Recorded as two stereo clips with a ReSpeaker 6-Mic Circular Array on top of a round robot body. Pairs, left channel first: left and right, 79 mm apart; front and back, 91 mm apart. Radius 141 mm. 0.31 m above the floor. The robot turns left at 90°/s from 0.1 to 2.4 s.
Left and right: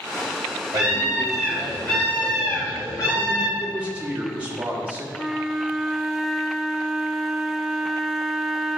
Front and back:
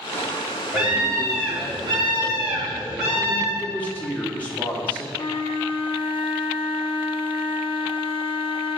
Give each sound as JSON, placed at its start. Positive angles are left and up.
{"t": 0.7, "sound": "a scream", "azimuth_deg": -110, "distance_m": 2.5}
{"t": 3.6, "sound": "a man speaking", "azimuth_deg": -45, "distance_m": 1.5}
{"t": 5.1, "sound": "a flute", "azimuth_deg": -5, "distance_m": 0.6}